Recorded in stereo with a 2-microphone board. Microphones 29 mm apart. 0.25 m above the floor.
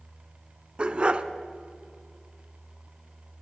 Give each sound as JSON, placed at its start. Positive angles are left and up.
{"t": 0.8, "sound": "a dog barking", "side_deg": -35, "distance_m": 0.5}